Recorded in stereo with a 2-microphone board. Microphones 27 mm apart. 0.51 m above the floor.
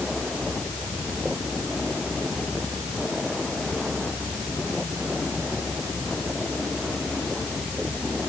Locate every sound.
Only background noise.